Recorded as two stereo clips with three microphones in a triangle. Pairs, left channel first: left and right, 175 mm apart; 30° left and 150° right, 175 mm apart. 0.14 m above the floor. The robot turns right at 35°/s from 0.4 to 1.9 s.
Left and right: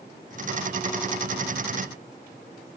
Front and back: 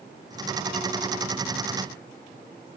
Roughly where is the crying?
No crying in this recording.